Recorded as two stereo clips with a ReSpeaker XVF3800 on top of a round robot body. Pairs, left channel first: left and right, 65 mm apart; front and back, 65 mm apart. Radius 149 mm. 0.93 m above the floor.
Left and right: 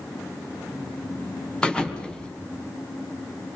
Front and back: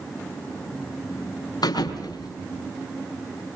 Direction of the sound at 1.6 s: 15° left.